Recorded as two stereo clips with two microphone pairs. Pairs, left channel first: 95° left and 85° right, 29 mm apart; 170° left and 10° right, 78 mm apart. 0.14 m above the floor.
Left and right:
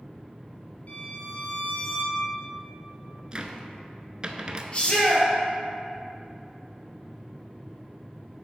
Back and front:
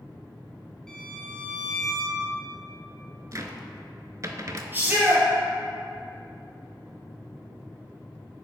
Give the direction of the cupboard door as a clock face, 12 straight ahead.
1 o'clock.